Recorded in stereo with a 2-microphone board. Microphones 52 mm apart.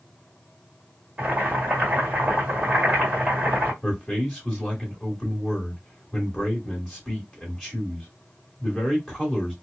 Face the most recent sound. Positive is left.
turn(degrees=5)  # may be behind; listen again after turning